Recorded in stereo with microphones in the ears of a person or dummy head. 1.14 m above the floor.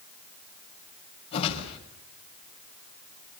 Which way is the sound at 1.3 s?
40° left (ahead or behind).